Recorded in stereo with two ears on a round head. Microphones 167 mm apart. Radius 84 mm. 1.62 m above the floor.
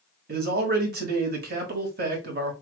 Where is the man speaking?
55° right (ahead or behind), 1.8 m.